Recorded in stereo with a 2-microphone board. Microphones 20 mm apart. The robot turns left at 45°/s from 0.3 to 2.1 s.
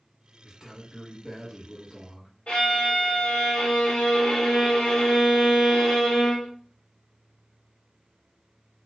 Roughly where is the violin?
Left.